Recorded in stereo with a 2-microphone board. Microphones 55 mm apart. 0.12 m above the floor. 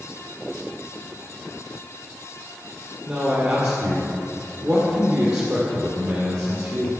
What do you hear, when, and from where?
3.1 s a man speaking: 55° right (ahead or behind), 2 m